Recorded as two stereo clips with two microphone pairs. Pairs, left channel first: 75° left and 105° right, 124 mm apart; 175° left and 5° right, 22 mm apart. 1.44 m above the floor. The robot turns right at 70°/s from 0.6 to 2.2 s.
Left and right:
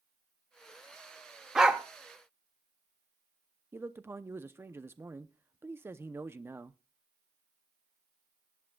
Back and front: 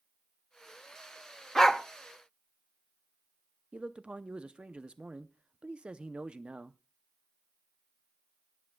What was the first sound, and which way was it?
A dog barking, 175° right.